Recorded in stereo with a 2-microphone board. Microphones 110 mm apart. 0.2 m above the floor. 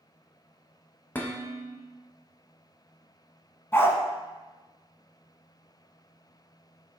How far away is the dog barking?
About 0.5 m.